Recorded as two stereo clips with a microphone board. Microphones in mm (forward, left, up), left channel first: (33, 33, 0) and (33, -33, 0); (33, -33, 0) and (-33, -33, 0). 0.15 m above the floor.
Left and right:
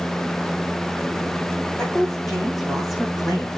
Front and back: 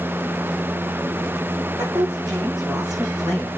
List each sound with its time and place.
1.8 s a woman speaking: 175° left, 8 m; by 3.5 s 170° right, 7.5 m